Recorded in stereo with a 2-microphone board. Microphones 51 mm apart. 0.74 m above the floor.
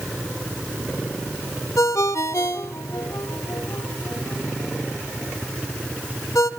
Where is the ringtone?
80° left, 1.5 m.